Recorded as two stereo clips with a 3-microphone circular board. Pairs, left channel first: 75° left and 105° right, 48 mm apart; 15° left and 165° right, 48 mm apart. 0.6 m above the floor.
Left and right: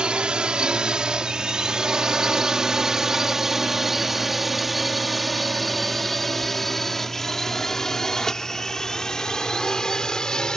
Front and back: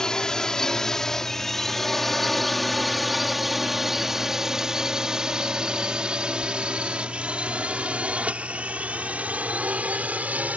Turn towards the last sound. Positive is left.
turn(degrees=145)